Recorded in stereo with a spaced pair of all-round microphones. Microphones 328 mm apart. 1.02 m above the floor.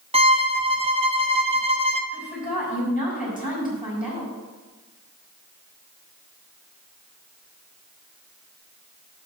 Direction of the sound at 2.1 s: 25° left (ahead or behind).